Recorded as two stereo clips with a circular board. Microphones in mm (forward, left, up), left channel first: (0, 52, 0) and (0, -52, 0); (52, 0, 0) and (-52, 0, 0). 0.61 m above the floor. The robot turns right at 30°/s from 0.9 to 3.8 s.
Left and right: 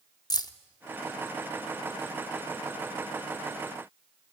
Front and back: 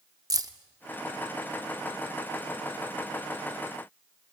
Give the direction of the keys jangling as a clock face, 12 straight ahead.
8 o'clock.